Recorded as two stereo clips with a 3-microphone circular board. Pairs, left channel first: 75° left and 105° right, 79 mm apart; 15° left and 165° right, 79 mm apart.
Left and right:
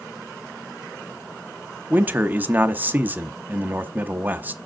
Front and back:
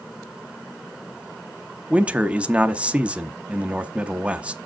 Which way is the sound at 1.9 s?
120° right.